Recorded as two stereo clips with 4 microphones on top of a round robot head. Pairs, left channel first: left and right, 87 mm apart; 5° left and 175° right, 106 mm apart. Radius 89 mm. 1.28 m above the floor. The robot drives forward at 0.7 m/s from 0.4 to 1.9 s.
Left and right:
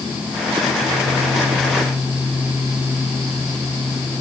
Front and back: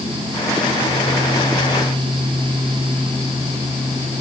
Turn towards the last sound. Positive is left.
No sound to turn to.